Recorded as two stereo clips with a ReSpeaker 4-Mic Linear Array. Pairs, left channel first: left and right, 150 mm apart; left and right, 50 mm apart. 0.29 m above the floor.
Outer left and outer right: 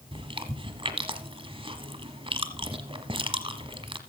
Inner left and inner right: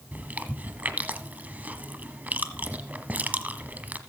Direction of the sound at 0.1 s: 40° right (ahead or behind).